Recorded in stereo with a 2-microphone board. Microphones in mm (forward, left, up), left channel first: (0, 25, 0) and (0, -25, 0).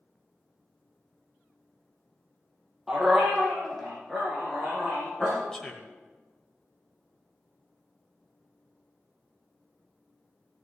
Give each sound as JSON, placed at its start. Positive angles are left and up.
{"t": 2.9, "sound": "a dog barking", "side_deg": -10, "distance_m": 3.0}
{"t": 5.5, "sound": "a man speaking", "side_deg": 15, "distance_m": 1.2}